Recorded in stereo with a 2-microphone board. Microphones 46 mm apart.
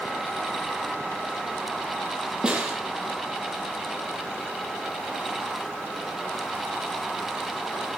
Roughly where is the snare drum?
Centre.